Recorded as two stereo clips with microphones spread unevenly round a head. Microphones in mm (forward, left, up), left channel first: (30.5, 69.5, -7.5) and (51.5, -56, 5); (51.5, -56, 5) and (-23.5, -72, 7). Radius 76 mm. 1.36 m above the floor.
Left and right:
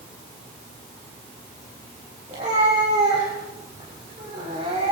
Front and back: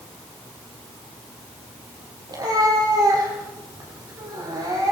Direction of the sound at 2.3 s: 135° right.